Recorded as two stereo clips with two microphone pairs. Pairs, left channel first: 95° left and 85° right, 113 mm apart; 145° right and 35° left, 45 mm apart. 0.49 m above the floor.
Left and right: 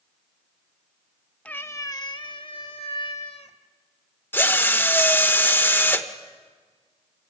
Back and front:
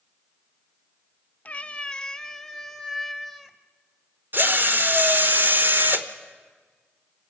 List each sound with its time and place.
1.4 s a cat meowing: 165° left, 0.5 m; by 3.6 s 115° left, 1.4 m
4.3 s a drill: 25° left, 1.1 m